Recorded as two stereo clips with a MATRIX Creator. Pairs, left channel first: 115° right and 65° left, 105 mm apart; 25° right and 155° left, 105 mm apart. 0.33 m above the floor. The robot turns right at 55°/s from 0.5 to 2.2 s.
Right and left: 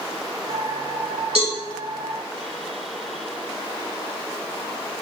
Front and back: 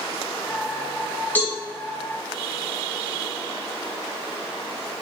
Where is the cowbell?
50° left, 1.8 m; by 1.6 s 65° left, 1.8 m.